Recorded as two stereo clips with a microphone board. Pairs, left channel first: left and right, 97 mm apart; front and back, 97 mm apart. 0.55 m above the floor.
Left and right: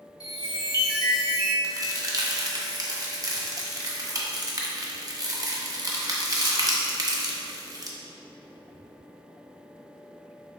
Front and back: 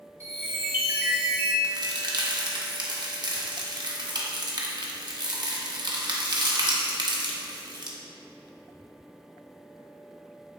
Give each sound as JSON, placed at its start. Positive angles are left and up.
{"t": 0.2, "sound": "a chime", "azimuth_deg": 120, "distance_m": 0.8}
{"t": 1.6, "sound": "a crack", "azimuth_deg": -140, "distance_m": 0.5}